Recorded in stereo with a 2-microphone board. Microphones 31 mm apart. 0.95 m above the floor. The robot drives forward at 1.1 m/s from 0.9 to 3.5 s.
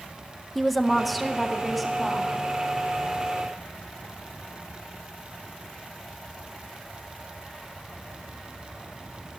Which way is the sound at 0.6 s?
5° left (ahead or behind).